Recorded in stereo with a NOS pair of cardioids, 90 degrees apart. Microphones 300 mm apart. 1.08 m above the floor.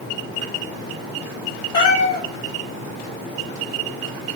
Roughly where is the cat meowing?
Ahead left.